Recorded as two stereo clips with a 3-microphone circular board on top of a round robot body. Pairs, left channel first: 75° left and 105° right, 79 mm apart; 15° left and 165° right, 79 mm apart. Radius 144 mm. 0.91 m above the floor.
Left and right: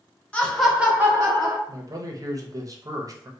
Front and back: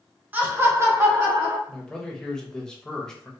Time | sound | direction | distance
0.3 | laughter | 140° left | 1.0 m
1.7 | a man speaking | 65° right | 0.7 m